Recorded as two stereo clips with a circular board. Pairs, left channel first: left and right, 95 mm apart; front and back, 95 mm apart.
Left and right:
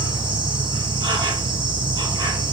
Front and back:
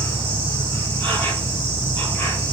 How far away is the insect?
About 1.9 m.